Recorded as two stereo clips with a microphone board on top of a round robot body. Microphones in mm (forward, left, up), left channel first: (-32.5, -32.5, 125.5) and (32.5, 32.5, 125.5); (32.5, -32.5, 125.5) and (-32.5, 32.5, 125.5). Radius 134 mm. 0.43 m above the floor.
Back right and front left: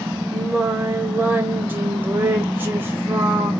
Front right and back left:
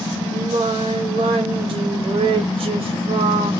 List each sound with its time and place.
0.3 s singing: 115° left, 0.6 m